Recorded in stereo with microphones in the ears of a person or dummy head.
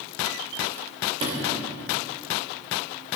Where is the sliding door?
35° right (ahead or behind), 2 m.